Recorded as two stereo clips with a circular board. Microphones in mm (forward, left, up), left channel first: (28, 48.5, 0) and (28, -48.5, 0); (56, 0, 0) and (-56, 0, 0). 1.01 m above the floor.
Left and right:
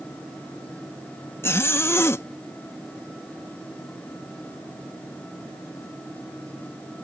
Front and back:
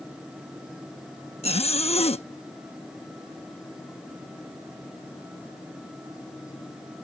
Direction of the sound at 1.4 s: 25° left.